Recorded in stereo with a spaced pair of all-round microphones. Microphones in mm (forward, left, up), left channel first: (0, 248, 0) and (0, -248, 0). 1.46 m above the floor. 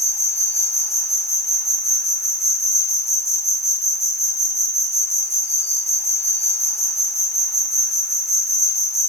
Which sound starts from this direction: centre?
An insect, at 0.0 s.